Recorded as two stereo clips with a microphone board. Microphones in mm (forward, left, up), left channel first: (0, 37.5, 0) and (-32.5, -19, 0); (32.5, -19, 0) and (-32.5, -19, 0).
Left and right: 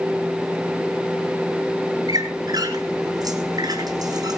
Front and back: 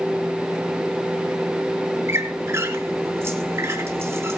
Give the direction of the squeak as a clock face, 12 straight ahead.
4 o'clock.